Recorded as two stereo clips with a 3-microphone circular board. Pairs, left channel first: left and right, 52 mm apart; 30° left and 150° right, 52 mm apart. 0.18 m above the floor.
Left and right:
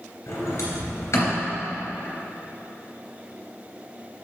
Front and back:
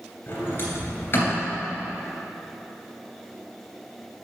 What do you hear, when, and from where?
0.3 s a sliding door: 75° left, 2.5 m